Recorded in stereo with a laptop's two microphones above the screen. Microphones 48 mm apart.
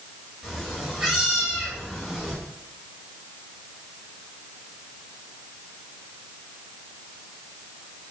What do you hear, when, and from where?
0.4 s a cat meowing: 10° right (ahead or behind), 1.1 m